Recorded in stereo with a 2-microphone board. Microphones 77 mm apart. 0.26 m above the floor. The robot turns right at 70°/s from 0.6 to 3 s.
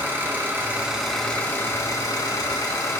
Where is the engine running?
35° right, 2.5 m; by 3.0 s 135° left, 2.5 m.